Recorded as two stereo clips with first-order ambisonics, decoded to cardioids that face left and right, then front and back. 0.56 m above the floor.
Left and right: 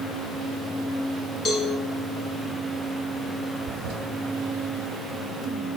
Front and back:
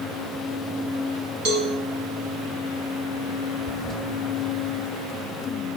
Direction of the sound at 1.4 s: 155° left.